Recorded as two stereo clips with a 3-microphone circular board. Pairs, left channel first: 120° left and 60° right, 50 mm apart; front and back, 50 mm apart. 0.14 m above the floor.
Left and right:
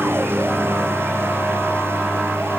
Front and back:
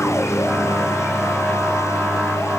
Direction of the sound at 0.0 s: 20° right.